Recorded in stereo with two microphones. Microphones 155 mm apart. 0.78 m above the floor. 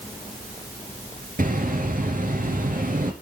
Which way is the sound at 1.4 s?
65° right (ahead or behind).